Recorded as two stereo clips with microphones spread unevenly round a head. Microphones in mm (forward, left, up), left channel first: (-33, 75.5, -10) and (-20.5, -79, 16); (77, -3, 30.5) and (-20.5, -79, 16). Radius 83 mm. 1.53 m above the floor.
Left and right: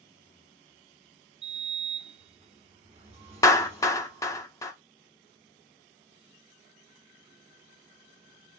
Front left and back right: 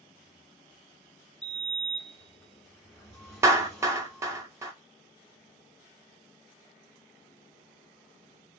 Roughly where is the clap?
Behind.